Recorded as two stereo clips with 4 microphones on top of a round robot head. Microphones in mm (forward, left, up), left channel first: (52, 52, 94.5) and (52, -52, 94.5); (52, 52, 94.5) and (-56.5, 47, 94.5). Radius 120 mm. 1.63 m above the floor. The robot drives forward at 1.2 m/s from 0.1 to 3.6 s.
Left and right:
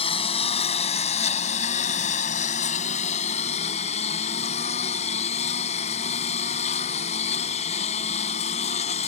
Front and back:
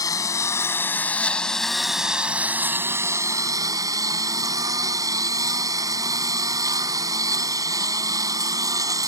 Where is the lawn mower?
60° left; by 9.1 s 125° left.